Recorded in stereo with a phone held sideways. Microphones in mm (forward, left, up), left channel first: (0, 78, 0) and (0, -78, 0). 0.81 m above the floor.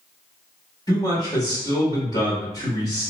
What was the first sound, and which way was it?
A man speaking, 25° left (ahead or behind).